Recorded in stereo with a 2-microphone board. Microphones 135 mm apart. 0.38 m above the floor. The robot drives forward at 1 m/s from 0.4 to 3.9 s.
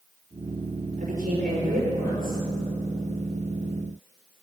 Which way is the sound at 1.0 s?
80° right.